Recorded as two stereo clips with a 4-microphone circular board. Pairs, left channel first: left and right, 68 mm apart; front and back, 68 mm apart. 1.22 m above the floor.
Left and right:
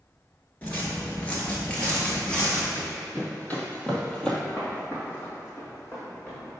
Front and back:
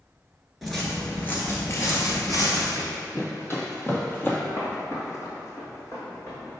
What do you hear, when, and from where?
0.6 s footsteps: 95° left, 1.2 m; by 2.6 s 15° left, 2 m
2.8 s running footsteps: 40° left, 1.9 m; by 4.4 s 20° left, 1.3 m
4.5 s footsteps: 30° left, 1.8 m; by 6.6 s 45° left, 2.5 m